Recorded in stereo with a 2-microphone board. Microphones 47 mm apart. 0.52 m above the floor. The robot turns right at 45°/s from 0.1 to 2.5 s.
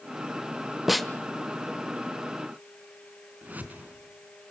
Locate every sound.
0.9 s a snare drum: 5° right (ahead or behind), 1.3 m; by 1.1 s 5° left (ahead or behind), 1.3 m
3.4 s a whoosh: 35° right (ahead or behind), 3.5 m